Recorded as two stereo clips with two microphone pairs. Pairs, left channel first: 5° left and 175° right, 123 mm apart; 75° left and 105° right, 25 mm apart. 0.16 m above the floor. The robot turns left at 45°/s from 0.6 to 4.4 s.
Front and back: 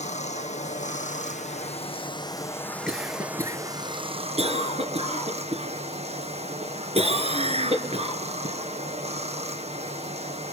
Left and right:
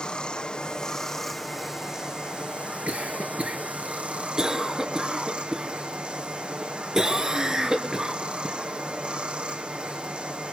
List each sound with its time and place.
0.0 s running water: 25° left, 1.5 m; by 10.5 s 145° right, 1.5 m
2.9 s a cough: 90° right, 2.5 m; by 8.6 s 160° right, 2.5 m